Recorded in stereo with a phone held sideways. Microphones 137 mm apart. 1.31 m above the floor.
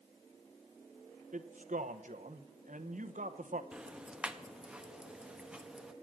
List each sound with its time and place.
1.3 s a man speaking: 70° right (ahead or behind), 0.9 m
3.7 s ticking: 5° right (ahead or behind), 0.8 m